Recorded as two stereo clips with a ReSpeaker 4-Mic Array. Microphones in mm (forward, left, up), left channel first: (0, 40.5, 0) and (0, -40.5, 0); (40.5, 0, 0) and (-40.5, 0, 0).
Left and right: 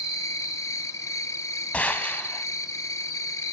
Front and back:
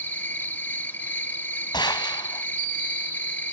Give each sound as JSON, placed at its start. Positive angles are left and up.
{"t": 0.0, "sound": "an insect", "azimuth_deg": 60, "distance_m": 0.9}
{"t": 1.7, "sound": "a gunshot", "azimuth_deg": 15, "distance_m": 1.3}